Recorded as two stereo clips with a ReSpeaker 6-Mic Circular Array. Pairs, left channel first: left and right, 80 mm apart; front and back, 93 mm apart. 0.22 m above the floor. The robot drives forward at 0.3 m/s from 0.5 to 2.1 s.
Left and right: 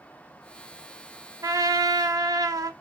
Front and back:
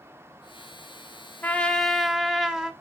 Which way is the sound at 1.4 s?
65° right.